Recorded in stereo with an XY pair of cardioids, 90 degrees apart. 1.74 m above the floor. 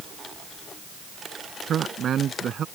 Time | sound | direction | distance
1.7 | a man speaking | 65° right | ?